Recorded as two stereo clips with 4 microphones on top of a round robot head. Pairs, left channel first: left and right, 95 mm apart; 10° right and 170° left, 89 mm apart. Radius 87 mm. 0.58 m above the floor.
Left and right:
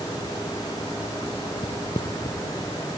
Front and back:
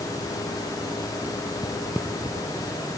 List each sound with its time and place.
1.6 s footsteps: 55° left, 0.8 m; by 2.7 s 150° left, 1.1 m